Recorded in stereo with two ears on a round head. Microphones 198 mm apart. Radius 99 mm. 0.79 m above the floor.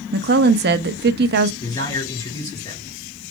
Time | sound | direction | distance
0.1 | a woman speaking | 45° right (ahead or behind) | 0.8 m
1.6 | a man speaking | 15° left (ahead or behind) | 5 m